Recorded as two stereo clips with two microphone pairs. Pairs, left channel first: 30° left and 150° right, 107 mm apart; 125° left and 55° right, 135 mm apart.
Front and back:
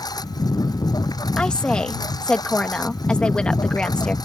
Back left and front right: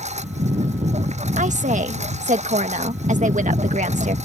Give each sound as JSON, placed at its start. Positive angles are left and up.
{"t": 0.0, "sound": "a lawn mower", "azimuth_deg": -25}
{"t": 1.4, "sound": "a woman speaking", "azimuth_deg": -50}